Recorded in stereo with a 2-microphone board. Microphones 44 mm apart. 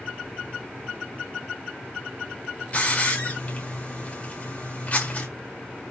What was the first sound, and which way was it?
A hiss, 35° left (ahead or behind).